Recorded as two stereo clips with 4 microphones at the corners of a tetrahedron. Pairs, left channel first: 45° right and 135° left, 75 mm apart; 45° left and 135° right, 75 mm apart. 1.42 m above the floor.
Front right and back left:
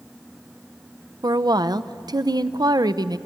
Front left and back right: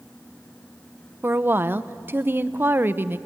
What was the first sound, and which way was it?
A woman speaking, 165° left.